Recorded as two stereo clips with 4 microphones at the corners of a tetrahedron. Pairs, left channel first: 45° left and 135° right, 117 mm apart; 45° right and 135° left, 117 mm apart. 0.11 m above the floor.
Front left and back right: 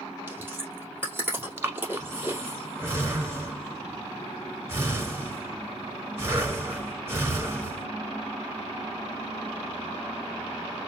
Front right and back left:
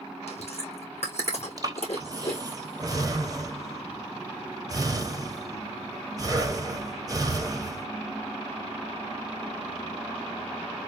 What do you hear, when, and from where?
0.3 s chewing: 60° right, 2.5 m
1.6 s breathing: 170° left, 1.2 m